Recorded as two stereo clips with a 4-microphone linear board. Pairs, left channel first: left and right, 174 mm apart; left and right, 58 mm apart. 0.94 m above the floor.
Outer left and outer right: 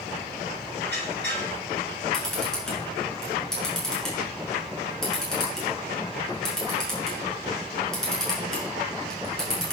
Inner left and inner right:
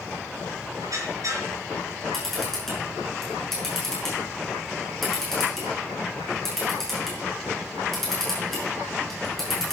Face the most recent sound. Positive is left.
turn(degrees=5)  # may be behind; listen again after turning